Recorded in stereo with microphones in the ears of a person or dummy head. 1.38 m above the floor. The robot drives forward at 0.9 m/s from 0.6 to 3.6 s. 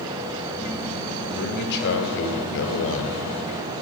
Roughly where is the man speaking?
Left.